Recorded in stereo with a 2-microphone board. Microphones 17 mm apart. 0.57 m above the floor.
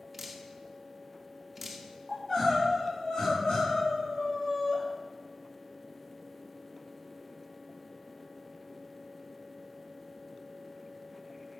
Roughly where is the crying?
Left.